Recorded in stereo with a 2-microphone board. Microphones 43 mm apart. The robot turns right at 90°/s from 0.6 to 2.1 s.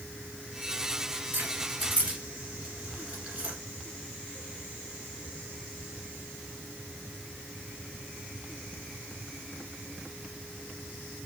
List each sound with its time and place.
1.3 s keys jangling: 50° right (ahead or behind), 1.6 m; by 3.5 s 30° right (ahead or behind), 1.6 m